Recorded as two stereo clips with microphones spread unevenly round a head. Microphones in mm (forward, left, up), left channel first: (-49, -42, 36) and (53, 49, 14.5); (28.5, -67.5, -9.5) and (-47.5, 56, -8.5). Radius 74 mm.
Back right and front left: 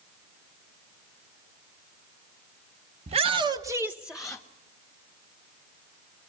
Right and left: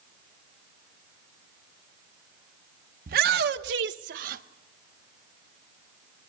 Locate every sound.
3.1 s a shout: 90° left, 0.9 m; by 4.4 s 140° left, 1.0 m